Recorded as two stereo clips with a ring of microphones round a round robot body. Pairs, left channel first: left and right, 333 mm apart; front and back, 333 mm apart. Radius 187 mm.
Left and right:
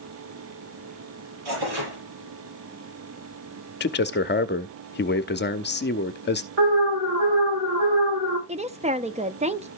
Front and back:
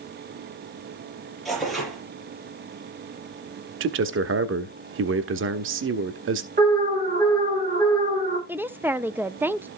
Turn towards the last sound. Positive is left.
turn(degrees=-105)